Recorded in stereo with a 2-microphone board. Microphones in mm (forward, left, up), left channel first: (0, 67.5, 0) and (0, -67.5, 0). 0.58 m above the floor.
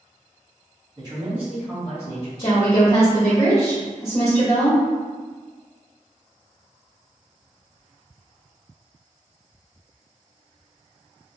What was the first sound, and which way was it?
A man speaking, 35° right (ahead or behind).